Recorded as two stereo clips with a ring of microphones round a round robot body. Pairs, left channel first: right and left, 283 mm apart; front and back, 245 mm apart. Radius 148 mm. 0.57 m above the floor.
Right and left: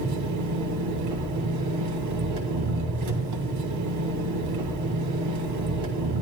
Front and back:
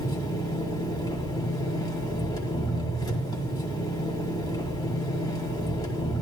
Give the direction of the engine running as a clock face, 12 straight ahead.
9 o'clock.